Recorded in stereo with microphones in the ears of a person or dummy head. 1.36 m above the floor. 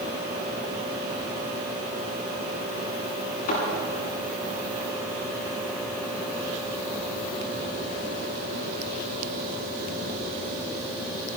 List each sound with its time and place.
3.5 s a thud: 50° left (ahead or behind), 7.5 m